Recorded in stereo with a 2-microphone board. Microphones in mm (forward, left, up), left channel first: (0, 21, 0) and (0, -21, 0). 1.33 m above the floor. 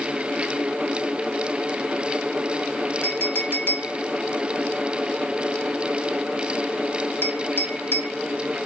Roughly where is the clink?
Left.